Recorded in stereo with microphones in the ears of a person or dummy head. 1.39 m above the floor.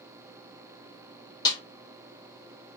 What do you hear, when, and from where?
1.4 s a snare drum: 25° left (ahead or behind), 1.4 m